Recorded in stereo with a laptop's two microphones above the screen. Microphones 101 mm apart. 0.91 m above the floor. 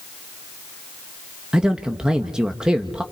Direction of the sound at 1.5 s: 10° right (ahead or behind).